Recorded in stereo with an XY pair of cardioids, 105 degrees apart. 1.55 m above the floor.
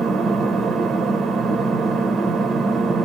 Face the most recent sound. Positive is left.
turn(degrees=-50)